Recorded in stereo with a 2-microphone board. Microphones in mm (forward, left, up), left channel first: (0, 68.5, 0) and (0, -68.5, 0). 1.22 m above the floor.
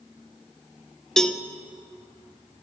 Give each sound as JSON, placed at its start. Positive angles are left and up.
{"t": 1.2, "sound": "a cowbell", "side_deg": 5, "distance_m": 0.8}